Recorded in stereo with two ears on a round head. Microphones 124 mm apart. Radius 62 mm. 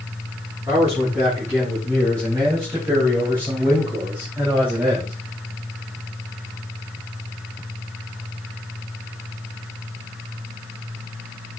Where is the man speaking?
20° right (ahead or behind), 5 m; by 5.1 s 10° right (ahead or behind), 2.5 m.